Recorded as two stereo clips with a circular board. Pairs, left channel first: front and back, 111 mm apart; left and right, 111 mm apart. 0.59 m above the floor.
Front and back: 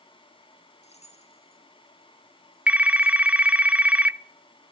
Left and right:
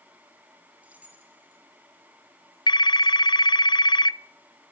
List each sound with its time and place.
0.8 s keys jangling: 10° right, 4.5 m; by 3.5 s 25° right, 5.5 m
2.7 s a phone ringing: 110° left, 0.5 m